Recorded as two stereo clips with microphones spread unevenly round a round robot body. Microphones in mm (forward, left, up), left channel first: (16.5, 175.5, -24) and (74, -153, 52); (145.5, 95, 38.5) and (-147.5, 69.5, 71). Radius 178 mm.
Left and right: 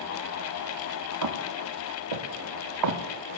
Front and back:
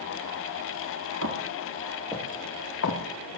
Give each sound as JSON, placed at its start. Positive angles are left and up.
{"t": 1.2, "sound": "footsteps", "azimuth_deg": -120, "distance_m": 2.5}